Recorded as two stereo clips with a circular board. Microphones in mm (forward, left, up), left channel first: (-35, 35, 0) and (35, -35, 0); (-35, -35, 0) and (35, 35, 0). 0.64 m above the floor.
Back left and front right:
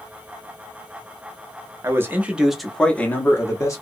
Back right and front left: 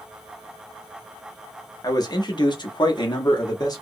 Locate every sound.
1.8 s a man speaking: 100° right, 0.8 m; by 3.8 s 175° right, 1.0 m